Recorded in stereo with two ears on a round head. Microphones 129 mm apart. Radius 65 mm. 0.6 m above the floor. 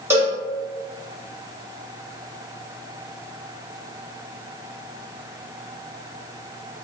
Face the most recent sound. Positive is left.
turn(degrees=-15)  # may be behind; listen again after turning